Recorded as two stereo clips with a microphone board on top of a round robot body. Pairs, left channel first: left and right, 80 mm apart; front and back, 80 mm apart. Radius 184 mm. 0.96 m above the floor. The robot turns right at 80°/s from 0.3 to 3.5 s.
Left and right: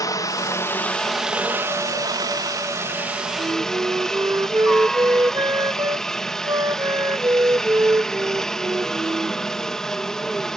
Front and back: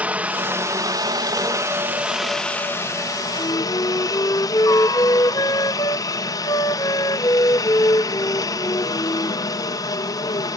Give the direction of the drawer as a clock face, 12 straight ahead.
I don't hear a drawer.